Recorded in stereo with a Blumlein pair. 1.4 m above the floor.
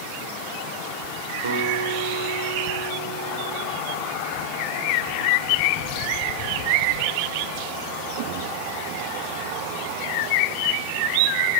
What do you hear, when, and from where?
1.4 s a guitar: 65° right, 5.5 m